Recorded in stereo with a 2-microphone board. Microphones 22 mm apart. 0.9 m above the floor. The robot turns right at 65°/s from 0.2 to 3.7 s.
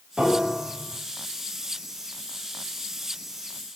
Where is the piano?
135° right, 6 m; by 1.0 s 85° right, 6 m.